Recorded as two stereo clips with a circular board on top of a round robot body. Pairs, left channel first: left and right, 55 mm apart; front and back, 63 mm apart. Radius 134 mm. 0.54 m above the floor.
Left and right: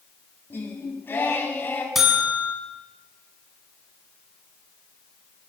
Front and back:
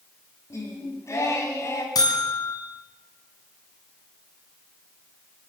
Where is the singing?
40° left, 4.5 m.